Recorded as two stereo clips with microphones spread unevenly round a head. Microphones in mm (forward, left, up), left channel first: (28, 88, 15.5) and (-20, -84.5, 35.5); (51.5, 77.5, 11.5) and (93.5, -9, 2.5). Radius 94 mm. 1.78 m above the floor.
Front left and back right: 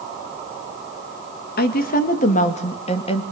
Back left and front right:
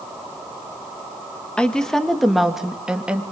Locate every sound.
1.6 s a woman speaking: 40° left, 2.5 m; by 3.2 s 15° left, 3 m